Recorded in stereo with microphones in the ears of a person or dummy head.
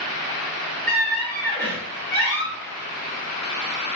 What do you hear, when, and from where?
0.9 s a squeak: 10° left (ahead or behind), 0.7 m